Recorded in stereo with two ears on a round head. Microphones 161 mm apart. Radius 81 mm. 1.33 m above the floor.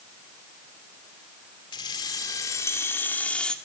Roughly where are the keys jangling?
Left.